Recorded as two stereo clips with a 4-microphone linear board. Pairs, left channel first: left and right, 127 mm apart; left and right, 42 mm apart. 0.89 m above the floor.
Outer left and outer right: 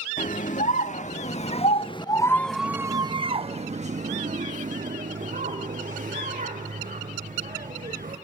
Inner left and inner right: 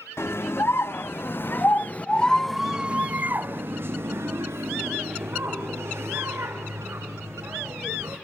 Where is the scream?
70° left (ahead or behind), 1.7 m; by 8.2 s 80° right, 4 m.